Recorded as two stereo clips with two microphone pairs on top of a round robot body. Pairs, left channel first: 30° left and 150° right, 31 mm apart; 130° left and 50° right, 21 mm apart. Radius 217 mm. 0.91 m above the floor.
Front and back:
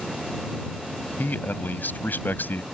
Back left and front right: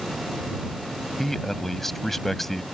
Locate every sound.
1.2 s a man speaking: 50° left; by 2.6 s 45° left